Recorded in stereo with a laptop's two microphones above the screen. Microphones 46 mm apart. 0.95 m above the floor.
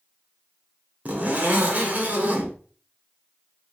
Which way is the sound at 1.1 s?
30° right (ahead or behind).